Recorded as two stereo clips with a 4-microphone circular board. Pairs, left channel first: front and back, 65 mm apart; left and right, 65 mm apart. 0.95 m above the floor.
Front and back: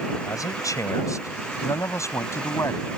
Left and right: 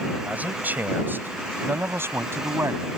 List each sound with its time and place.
0.2 s a man speaking: 25° right; by 2.9 s 45° right